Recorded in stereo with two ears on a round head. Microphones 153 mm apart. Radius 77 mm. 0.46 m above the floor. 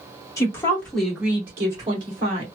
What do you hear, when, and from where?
0.4 s a woman speaking: 20° left (ahead or behind), 1.3 m; by 2.5 s 40° right (ahead or behind), 1.5 m